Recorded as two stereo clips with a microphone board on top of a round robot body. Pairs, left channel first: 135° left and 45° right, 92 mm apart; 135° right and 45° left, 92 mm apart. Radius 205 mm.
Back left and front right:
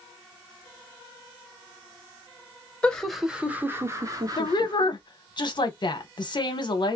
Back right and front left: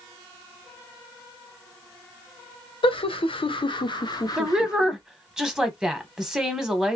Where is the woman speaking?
125° left, 1.2 m.